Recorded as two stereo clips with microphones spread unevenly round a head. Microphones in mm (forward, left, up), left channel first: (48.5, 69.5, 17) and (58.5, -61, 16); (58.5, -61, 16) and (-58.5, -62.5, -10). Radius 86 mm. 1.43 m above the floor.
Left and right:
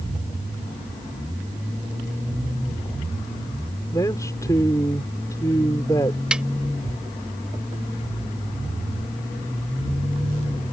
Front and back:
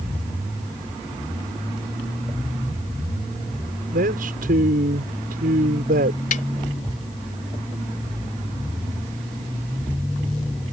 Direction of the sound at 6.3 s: Straight ahead.